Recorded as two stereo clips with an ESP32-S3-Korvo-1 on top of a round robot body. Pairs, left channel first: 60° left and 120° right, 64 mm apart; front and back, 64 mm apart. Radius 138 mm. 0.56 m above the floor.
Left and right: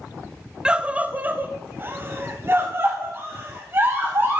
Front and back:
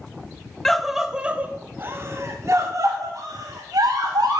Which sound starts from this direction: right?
A scream, at 0.7 s.